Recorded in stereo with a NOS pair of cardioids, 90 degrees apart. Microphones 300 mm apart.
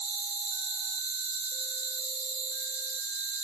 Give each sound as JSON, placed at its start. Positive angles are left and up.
{"t": 0.0, "sound": "an insect", "azimuth_deg": -40, "distance_m": 1.8}